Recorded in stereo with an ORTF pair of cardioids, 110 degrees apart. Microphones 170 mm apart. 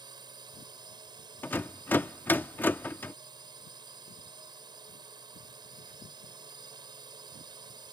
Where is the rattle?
10° left.